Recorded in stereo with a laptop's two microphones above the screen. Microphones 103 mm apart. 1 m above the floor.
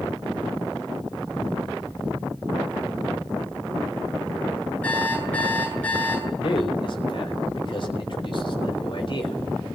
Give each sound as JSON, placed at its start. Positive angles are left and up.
{"t": 4.8, "sound": "an alarm clock", "side_deg": 15, "distance_m": 8.5}
{"t": 6.4, "sound": "a man speaking", "side_deg": 50, "distance_m": 4.0}